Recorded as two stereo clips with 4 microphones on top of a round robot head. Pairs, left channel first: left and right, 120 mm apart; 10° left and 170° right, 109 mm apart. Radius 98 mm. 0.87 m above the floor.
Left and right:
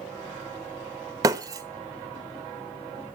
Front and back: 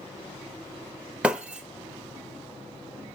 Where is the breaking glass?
100° right, 0.6 m.